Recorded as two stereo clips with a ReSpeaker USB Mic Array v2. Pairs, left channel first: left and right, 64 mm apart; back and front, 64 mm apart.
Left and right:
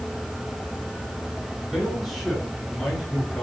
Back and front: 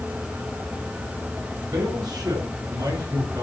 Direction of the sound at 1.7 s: 5° left.